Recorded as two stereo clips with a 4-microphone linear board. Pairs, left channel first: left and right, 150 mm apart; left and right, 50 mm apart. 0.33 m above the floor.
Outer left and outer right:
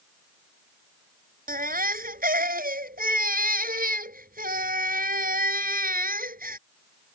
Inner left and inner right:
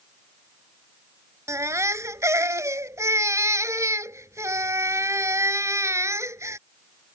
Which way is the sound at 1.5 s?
70° right (ahead or behind).